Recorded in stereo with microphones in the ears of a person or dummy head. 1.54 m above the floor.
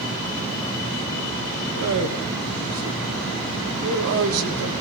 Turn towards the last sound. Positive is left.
turn(degrees=-80)